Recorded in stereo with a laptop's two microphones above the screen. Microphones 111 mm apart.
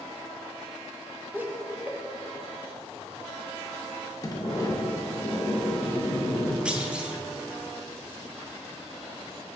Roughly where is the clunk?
Centre.